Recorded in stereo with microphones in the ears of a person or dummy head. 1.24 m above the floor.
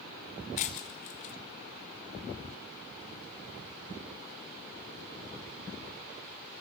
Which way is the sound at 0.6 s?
35° left (ahead or behind).